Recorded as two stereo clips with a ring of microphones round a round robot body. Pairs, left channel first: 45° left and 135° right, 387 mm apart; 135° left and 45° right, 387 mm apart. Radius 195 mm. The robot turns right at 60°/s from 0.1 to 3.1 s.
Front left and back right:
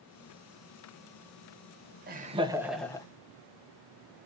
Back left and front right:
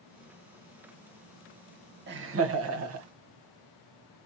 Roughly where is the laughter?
Right.